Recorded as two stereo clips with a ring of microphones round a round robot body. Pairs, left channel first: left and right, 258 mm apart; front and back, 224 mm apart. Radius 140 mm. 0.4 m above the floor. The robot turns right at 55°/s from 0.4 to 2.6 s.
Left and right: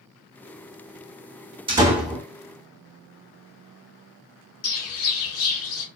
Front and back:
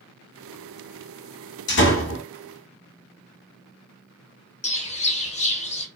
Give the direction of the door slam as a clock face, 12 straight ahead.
1 o'clock.